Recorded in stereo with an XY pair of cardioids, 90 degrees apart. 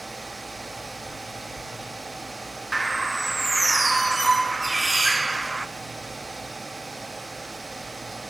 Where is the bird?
20° right, 1.5 m.